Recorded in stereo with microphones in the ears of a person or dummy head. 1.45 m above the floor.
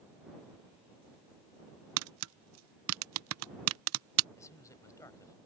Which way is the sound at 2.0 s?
85° right.